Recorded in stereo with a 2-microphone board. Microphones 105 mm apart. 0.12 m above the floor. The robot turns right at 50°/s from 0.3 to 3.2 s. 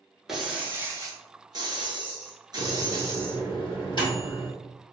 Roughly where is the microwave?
Centre.